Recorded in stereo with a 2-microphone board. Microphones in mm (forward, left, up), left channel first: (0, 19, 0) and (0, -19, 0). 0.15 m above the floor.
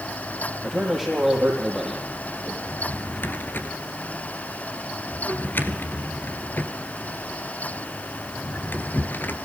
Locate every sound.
0.6 s a man speaking: centre (ahead or behind), 4.5 m
2.7 s a drawer: 55° left (ahead or behind), 1.7 m